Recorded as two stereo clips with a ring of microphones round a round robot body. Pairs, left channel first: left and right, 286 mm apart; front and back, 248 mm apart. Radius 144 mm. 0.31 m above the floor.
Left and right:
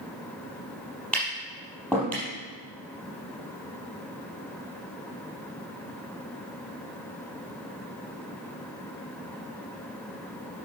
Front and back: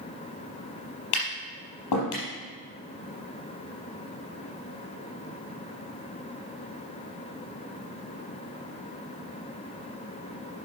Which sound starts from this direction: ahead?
Tapping, at 1.1 s.